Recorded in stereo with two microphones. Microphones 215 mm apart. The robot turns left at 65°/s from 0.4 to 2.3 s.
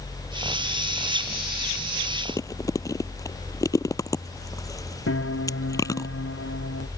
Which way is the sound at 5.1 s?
85° left.